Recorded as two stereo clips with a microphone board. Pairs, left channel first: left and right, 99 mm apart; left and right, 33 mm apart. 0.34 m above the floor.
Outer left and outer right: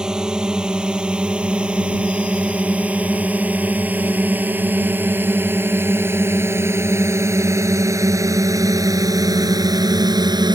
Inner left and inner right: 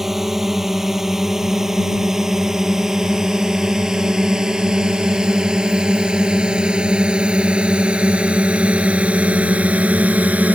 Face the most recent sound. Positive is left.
turn(degrees=-40)  # may be behind; listen again after turning